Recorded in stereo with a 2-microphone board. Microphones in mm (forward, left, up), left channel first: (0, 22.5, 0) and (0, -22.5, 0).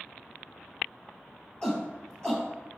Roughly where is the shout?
Centre.